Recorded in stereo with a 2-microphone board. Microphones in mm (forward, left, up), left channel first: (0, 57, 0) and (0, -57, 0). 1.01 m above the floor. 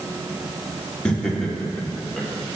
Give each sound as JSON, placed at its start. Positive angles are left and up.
{"t": 1.1, "sound": "laughter", "side_deg": 10, "distance_m": 2.0}